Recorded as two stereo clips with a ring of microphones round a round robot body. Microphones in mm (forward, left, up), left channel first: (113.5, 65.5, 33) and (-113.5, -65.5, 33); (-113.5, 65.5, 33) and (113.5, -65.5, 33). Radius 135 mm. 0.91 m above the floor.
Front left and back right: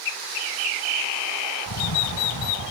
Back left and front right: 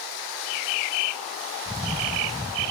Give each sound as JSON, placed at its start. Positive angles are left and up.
{"t": 1.7, "sound": "a camera shutter", "azimuth_deg": 45}